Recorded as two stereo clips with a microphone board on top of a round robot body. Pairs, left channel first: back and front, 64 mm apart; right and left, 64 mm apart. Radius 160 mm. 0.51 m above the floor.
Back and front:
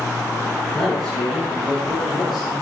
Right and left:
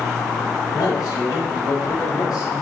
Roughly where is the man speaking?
Right.